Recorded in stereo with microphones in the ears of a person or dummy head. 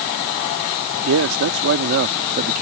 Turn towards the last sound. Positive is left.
turn(degrees=-40)  # may be behind; listen again after turning